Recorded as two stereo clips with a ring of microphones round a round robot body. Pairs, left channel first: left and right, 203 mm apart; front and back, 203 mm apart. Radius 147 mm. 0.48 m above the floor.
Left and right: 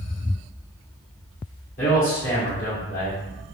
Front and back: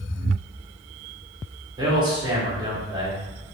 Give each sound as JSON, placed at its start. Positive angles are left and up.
{"t": 1.8, "sound": "a man speaking", "azimuth_deg": 120, "distance_m": 1.5}